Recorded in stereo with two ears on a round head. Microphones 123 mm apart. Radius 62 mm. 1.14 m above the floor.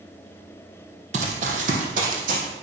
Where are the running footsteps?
50° right (ahead or behind), 2 m; by 2.4 s 60° right (ahead or behind), 3 m.